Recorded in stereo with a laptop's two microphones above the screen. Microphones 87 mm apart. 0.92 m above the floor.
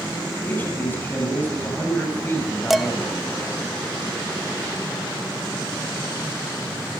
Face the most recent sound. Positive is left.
turn(degrees=0)  # may be behind; listen again after turning